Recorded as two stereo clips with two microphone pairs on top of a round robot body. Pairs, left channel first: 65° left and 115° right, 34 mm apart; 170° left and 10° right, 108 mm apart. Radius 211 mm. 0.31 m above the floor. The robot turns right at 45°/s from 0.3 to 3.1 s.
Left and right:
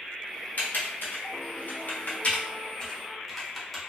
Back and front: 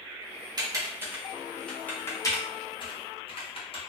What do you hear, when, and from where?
0.6 s typing on a keyboard: 40° left, 1.2 m; by 3.8 s 155° left, 1.2 m